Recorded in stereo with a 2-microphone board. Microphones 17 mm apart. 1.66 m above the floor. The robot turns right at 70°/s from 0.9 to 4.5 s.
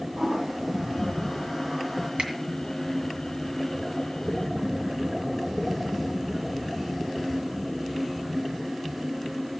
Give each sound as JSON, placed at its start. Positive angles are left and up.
{"t": 0.2, "sound": "a toilet flushing", "side_deg": -80, "distance_m": 5.0}
{"t": 2.2, "sound": "a finger snap", "side_deg": -80, "distance_m": 2.0}